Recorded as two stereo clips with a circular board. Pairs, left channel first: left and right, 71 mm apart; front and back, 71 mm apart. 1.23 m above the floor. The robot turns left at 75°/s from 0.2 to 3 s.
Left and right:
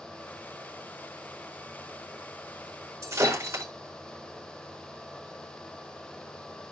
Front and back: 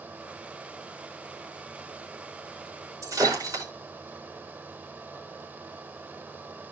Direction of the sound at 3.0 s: 140° right.